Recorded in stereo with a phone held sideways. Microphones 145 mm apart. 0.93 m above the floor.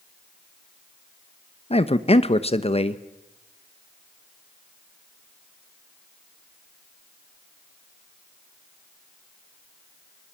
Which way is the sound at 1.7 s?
45° left (ahead or behind).